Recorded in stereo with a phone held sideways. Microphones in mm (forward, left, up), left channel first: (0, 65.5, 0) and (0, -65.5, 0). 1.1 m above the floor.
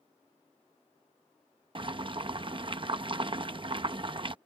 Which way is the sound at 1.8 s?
40° right (ahead or behind).